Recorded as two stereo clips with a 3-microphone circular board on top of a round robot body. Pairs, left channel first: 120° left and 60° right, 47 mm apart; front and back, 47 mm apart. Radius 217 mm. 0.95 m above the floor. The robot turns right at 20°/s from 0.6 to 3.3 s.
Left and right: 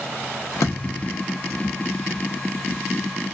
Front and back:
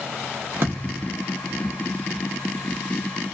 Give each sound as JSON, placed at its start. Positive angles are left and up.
{"t": 0.6, "sound": "a thud", "azimuth_deg": 140, "distance_m": 0.5}